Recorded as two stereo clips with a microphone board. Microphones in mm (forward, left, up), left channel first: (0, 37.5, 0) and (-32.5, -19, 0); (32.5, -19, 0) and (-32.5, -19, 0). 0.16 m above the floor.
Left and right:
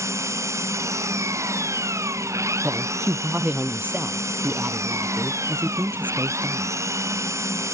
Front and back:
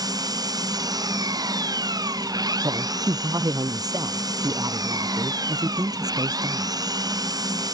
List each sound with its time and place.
0.0 s an engine running: 165° right
2.6 s a woman speaking: straight behind